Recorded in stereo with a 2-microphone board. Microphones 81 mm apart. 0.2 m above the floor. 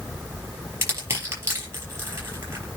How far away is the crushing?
About 5.5 m.